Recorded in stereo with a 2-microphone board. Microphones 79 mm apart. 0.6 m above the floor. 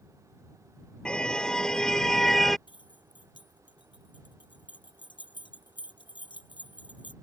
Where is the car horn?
10° left (ahead or behind); by 2.6 s 5° left (ahead or behind).